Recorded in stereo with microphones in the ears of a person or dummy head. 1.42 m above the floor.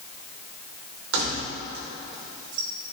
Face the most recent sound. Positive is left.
turn(degrees=-50)  # may be behind; listen again after turning